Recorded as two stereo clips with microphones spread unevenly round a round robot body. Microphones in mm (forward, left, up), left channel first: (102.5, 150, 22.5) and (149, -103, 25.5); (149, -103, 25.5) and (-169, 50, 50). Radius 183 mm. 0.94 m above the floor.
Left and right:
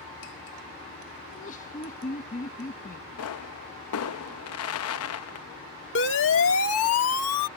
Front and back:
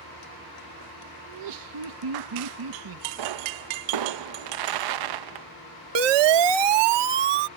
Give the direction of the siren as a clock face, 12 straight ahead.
7 o'clock.